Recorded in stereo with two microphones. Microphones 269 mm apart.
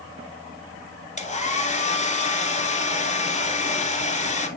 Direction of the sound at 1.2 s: 25° left (ahead or behind).